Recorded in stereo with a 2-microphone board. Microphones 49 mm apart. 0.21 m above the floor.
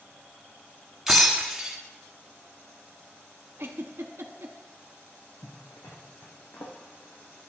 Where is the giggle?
55° right (ahead or behind), 0.8 m.